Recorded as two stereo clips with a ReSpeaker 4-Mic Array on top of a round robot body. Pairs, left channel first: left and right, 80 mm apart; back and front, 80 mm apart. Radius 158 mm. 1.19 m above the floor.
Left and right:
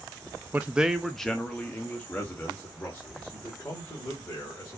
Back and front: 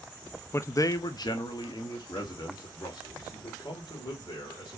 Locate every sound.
0.5 s a man speaking: 145° right, 0.5 m; by 4.8 s 150° left, 2.5 m